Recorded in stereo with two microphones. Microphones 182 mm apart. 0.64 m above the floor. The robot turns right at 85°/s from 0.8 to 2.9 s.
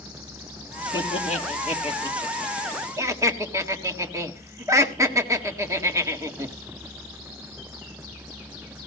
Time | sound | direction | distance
0.9 | laughter | 25° left (ahead or behind) | 1.6 m